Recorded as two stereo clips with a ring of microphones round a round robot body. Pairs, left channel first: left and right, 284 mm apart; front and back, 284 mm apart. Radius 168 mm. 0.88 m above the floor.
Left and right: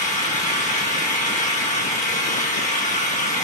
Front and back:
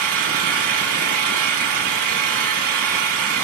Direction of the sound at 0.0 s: 155° left.